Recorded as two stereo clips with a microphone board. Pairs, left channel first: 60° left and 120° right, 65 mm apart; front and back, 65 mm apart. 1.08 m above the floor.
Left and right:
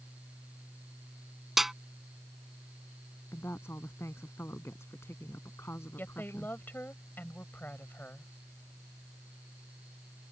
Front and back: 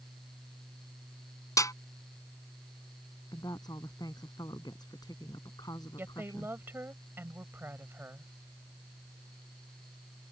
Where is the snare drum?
35° right.